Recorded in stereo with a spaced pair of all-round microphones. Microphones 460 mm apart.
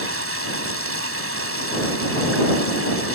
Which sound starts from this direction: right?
Running water, at 0.0 s.